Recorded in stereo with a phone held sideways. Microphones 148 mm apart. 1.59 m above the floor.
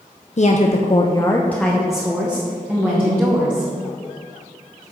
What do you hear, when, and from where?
0.4 s a woman speaking: 50° left (ahead or behind), 0.7 m; by 3.7 s 15° right (ahead or behind), 2.5 m